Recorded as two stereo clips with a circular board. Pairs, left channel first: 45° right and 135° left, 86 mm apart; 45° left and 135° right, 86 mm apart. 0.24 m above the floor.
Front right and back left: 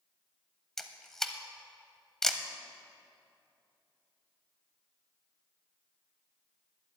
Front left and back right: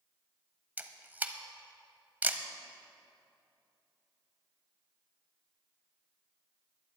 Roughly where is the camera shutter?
Behind right.